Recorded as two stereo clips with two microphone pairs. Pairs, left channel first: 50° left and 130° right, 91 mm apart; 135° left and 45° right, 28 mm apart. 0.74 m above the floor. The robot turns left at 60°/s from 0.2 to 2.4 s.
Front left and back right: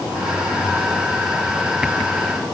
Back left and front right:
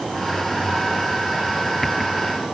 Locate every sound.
Only background noise.